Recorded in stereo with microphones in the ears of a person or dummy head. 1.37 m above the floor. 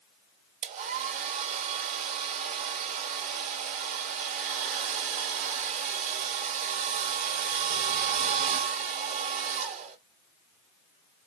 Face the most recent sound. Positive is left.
turn(degrees=-35)  # may be behind; listen again after turning